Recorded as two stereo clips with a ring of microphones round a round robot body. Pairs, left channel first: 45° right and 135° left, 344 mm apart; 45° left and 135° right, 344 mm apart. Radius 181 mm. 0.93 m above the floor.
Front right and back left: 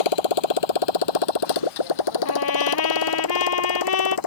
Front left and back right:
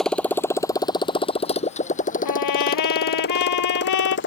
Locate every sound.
0.0 s a motorcycle: 45° right; by 4.3 s 15° right
2.2 s a trumpet: 5° left